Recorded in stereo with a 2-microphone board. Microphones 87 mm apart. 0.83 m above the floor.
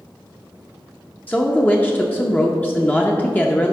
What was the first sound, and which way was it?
A woman speaking, 20° left (ahead or behind).